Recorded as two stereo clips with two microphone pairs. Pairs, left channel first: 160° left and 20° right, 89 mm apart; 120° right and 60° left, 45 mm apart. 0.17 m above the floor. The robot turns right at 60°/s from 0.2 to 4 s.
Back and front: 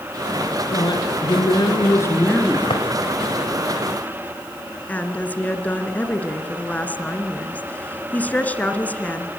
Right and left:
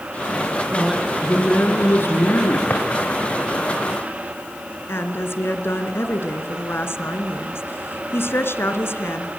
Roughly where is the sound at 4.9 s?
Behind right.